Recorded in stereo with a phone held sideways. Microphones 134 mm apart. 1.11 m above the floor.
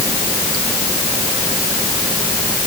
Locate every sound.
Only background noise.